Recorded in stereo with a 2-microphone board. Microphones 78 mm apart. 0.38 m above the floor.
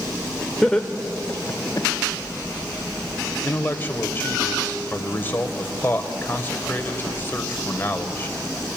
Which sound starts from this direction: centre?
Laughter, at 0.6 s.